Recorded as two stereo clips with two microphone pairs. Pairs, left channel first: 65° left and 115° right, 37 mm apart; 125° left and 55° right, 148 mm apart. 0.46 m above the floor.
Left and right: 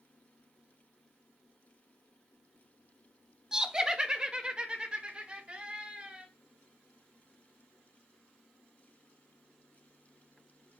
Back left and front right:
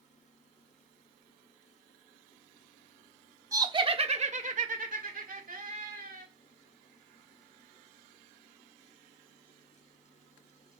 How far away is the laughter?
About 0.8 m.